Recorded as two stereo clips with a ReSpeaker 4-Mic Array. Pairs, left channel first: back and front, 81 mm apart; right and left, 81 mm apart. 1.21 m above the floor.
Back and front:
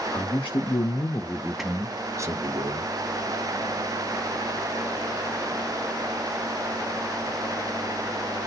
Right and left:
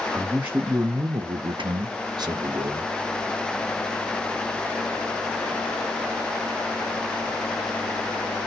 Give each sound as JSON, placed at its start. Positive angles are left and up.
{"t": 0.1, "sound": "a man speaking", "azimuth_deg": 170, "distance_m": 1.0}